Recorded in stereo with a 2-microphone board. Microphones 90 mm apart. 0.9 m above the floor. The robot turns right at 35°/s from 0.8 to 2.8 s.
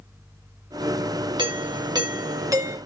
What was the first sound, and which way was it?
A doorbell, 85° right.